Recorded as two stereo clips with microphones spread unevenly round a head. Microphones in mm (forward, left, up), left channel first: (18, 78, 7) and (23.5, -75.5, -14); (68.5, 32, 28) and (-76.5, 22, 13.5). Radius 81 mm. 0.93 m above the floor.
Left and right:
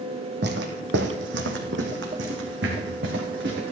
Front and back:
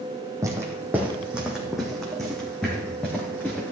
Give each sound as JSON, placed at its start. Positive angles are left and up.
{"t": 0.4, "sound": "footsteps", "azimuth_deg": -100, "distance_m": 1.9}